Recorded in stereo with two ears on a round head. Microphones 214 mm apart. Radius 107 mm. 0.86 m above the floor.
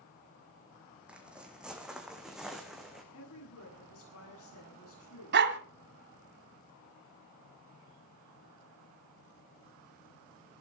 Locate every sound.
1.1 s footsteps: 5° right (ahead or behind), 2.5 m; by 3.0 s centre (ahead or behind), 3.5 m
3.1 s a woman speaking: 65° left (ahead or behind), 8.5 m
5.3 s a dog barking: 45° right (ahead or behind), 1.8 m